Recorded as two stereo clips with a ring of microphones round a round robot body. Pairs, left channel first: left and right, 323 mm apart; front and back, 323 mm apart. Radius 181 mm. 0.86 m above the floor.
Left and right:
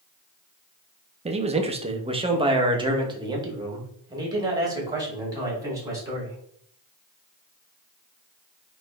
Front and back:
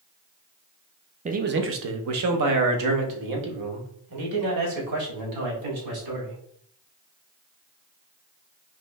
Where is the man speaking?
135° right, 0.6 m; by 6.4 s 170° right, 3 m.